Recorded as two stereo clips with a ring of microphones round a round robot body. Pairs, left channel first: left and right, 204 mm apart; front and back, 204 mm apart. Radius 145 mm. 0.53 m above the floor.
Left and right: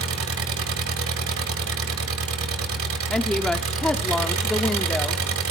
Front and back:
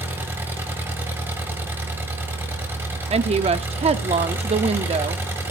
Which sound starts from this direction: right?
An engine running, at 0.0 s.